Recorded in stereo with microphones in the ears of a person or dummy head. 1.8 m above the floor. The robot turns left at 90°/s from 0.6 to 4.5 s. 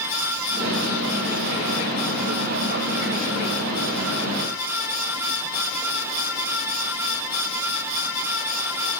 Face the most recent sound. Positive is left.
No sound to turn to.